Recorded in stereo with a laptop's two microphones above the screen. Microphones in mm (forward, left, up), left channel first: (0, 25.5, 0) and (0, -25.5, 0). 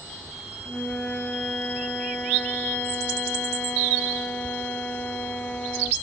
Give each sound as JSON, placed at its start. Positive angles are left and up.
{"t": 0.7, "sound": "a flute", "side_deg": 30}